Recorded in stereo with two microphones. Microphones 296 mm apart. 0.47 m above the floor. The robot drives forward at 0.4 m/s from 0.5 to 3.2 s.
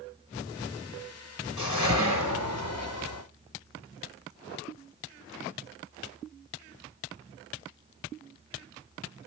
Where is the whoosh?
65° left (ahead or behind), 1.5 m; by 3.2 s 50° left (ahead or behind), 1.7 m.